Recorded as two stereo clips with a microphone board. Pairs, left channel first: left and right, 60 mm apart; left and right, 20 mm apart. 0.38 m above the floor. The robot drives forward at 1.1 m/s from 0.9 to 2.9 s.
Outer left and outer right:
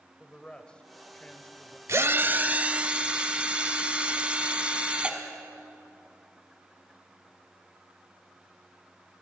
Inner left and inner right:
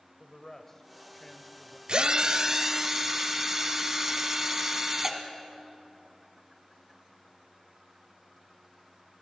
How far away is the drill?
About 0.6 m.